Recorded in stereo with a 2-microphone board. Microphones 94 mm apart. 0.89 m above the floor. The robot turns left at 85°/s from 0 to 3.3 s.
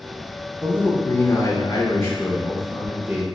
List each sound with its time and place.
0.6 s a man speaking: 175° left, 0.5 m; by 3.2 s 50° right, 0.5 m